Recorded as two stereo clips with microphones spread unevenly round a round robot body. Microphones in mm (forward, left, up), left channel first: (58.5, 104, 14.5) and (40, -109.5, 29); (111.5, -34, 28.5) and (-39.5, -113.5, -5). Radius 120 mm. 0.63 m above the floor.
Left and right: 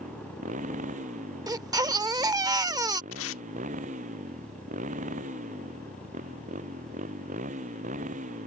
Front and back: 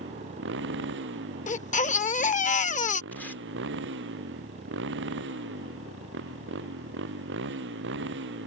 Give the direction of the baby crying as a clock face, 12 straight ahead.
1 o'clock.